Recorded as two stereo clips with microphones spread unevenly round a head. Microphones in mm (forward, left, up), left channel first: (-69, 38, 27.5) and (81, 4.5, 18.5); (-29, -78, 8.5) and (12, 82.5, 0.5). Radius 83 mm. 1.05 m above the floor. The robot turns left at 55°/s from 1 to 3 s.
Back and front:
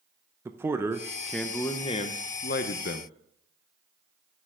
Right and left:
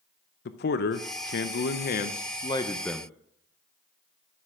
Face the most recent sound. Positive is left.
turn(degrees=165)